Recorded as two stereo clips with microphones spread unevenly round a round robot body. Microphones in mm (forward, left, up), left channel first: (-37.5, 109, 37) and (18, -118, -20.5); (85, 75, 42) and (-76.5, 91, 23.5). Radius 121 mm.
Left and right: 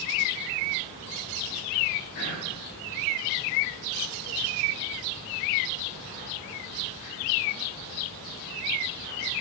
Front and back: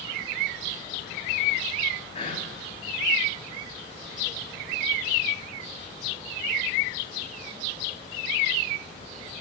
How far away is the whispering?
About 3.5 m.